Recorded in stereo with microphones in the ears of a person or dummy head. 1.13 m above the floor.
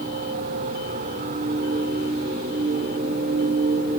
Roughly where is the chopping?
No chopping in this recording.